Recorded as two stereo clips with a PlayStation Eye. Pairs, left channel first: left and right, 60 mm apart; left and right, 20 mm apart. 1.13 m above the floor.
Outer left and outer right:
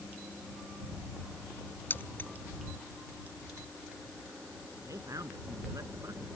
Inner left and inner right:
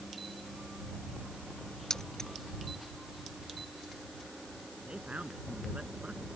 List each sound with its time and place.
1.9 s keys jangling: 35° left (ahead or behind)
4.9 s a man speaking: 75° right (ahead or behind)